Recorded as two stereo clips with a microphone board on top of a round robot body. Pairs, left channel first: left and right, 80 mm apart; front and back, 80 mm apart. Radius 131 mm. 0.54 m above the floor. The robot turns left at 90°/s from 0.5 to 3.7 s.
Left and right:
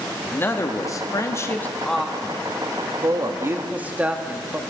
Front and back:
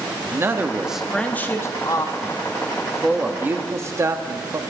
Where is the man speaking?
135° left, 1.2 m; by 4.6 s 150° right, 1.2 m.